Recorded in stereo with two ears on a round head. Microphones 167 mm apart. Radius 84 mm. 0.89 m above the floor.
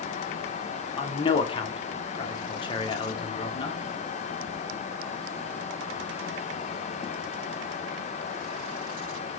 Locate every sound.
1.0 s a man speaking: 25° left (ahead or behind), 0.7 m